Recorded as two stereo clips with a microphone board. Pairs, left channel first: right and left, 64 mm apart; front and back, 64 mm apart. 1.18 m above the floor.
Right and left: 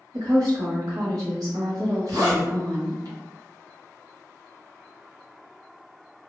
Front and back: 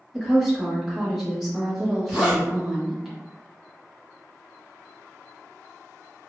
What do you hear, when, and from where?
0.1 s a woman speaking: 95° left, 1.8 m
2.1 s a zipper: 110° left, 1.9 m